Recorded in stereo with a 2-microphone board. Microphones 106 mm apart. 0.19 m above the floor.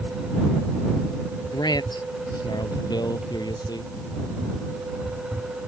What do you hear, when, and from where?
1.5 s a man speaking: 40° left (ahead or behind); by 3.9 s 35° left (ahead or behind)